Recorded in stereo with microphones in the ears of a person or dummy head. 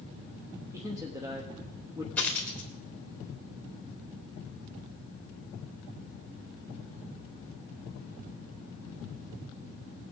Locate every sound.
0.7 s a man speaking: 15° right (ahead or behind), 0.9 m
2.2 s a dropped coin: 10° left (ahead or behind), 2 m